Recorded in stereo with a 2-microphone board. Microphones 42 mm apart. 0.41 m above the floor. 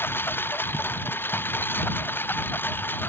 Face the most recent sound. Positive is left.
turn(degrees=55)  # may be behind; listen again after turning